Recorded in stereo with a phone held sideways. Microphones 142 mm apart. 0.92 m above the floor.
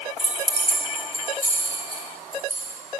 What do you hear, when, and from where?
0.2 s keys jangling: 55° right (ahead or behind), 3 m; by 2.8 s 90° right, 5.5 m